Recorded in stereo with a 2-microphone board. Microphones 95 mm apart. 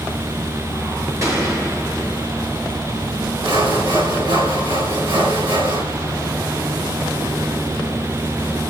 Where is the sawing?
65° right (ahead or behind), 3 m.